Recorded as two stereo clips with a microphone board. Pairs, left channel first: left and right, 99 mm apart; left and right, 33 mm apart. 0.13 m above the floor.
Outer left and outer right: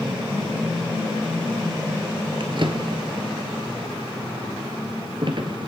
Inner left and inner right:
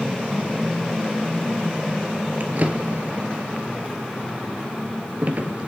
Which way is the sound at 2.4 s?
55° right (ahead or behind).